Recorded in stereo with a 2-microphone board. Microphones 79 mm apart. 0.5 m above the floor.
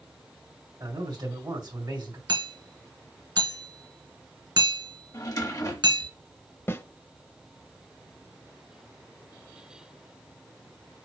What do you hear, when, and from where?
0.8 s a man speaking: 65° right (ahead or behind), 2 m
2.3 s hammering: 60° right (ahead or behind), 1.6 m
5.1 s a drawer: 50° left (ahead or behind), 1.0 m
6.7 s a snare drum: 35° left (ahead or behind), 0.5 m